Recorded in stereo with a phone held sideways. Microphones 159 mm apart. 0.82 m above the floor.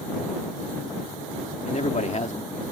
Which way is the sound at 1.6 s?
50° left (ahead or behind).